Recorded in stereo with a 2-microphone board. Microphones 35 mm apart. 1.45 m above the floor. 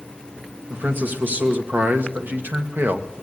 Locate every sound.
0.7 s a man speaking: 65° right (ahead or behind), 2 m; by 3.1 s 70° right (ahead or behind), 1.0 m